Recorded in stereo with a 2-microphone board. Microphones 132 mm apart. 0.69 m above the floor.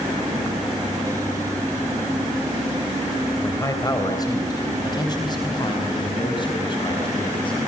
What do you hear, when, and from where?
3.4 s a man speaking: 25° left (ahead or behind), 2.5 m; by 7.6 s 40° left (ahead or behind), 5.5 m